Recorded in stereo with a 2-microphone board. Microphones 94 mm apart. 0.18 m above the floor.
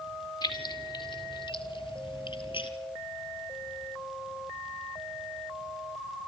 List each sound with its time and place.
0.4 s keys jangling: 55° left (ahead or behind), 2 m; by 2.7 s 70° left (ahead or behind), 2.5 m